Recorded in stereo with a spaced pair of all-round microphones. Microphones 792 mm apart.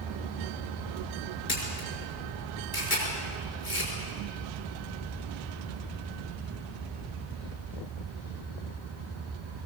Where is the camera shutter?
85° left, 6 m.